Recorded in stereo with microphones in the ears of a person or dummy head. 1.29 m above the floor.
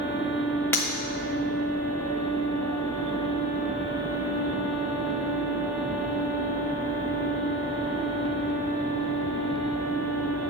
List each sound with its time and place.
0.7 s breaking glass: 15° left (ahead or behind), 1.2 m